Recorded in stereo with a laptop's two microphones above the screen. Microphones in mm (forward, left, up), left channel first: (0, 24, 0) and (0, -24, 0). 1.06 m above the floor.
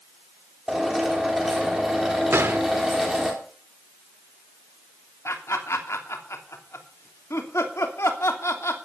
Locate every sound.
0.7 s a drill: 5° right (ahead or behind), 3.5 m
2.3 s a gunshot: 55° right (ahead or behind), 1.1 m
5.2 s laughter: 75° left (ahead or behind), 3 m